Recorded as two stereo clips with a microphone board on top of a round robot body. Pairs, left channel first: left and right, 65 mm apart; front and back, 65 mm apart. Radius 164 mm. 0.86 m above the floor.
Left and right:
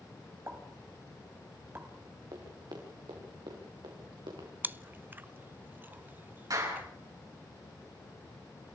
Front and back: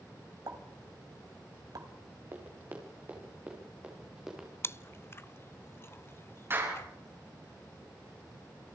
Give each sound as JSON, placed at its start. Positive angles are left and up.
{"t": 0.5, "sound": "a pop", "azimuth_deg": -150, "distance_m": 2.5}
{"t": 2.3, "sound": "running footsteps", "azimuth_deg": -125, "distance_m": 4.5}
{"t": 4.6, "sound": "chewing", "azimuth_deg": -40, "distance_m": 0.8}
{"t": 6.5, "sound": "a clap", "azimuth_deg": -130, "distance_m": 9.0}